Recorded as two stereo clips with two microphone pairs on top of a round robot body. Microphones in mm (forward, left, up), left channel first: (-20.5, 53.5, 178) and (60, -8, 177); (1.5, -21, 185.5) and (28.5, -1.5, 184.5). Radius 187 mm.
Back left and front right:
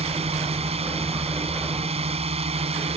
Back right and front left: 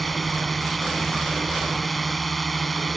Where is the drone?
55° right.